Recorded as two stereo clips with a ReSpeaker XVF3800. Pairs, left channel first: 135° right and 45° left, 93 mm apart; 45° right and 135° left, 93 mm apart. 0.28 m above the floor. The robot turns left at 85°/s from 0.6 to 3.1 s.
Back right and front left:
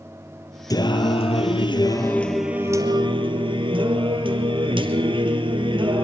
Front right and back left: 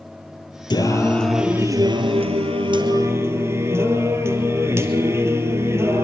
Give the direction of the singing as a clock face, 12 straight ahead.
3 o'clock.